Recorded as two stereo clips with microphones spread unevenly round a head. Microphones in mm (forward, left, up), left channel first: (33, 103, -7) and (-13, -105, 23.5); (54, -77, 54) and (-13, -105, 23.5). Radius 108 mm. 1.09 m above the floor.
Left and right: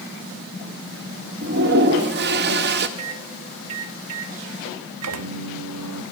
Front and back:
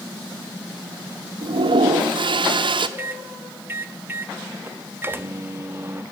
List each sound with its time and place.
1.4 s a toilet flushing: 145° right, 0.9 m
3.0 s a microwave: 90° right, 1.1 m